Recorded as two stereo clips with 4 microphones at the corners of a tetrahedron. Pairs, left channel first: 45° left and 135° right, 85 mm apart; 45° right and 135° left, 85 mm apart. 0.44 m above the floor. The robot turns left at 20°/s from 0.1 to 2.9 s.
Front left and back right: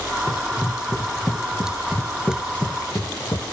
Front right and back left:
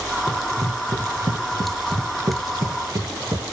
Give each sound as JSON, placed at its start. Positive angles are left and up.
{"t": 0.3, "sound": "running footsteps", "azimuth_deg": -175, "distance_m": 3.0}